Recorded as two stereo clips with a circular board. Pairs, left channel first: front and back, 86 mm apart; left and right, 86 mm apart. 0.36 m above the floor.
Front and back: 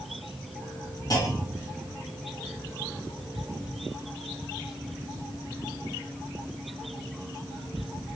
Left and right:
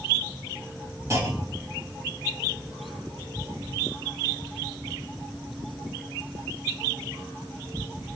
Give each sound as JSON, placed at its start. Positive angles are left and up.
{"t": 1.1, "sound": "a clunk", "azimuth_deg": -40, "distance_m": 2.5}